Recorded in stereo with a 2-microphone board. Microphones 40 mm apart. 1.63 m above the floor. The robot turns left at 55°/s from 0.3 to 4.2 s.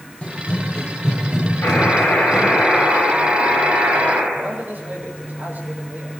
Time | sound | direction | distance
0.2 | running footsteps | 30° left (ahead or behind) | 1.9 m
1.6 | a buzzer | 90° left | 9.5 m
4.3 | a man speaking | 50° right (ahead or behind) | 6 m